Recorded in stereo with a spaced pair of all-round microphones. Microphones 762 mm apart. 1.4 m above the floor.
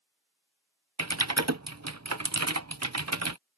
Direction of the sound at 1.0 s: 20° right (ahead or behind).